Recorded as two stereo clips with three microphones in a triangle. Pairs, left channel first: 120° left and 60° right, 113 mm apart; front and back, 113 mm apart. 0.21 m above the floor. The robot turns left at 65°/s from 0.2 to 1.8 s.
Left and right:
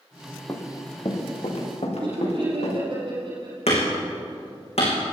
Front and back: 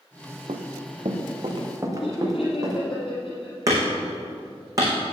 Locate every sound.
0.5 s running footsteps: 175° right, 2 m; by 2.8 s 130° left, 5 m
2.0 s laughter: 25° right, 5.5 m
3.7 s hammering: 125° left, 5.5 m